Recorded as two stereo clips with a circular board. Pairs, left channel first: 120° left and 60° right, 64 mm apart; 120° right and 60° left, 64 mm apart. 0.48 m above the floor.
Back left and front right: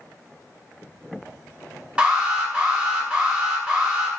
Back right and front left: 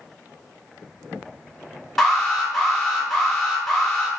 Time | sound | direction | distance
2.0 | an alarm | 40° right | 1.3 m